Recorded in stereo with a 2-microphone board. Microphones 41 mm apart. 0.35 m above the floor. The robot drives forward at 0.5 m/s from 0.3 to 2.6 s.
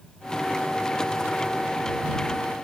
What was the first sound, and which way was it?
Only background noise.